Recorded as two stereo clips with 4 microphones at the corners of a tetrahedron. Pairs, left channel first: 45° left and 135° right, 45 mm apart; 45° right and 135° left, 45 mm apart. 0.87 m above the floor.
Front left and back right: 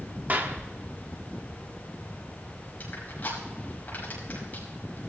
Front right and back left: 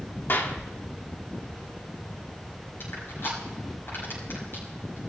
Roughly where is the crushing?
Ahead.